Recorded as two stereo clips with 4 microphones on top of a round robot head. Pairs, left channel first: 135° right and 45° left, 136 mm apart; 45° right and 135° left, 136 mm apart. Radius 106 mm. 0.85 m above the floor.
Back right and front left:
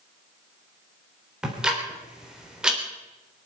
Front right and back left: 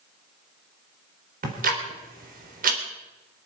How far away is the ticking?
About 3.5 m.